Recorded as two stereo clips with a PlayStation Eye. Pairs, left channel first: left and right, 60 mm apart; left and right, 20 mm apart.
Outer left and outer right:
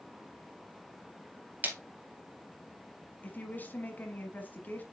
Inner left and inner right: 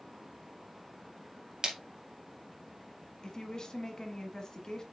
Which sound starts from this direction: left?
A woman speaking, at 3.2 s.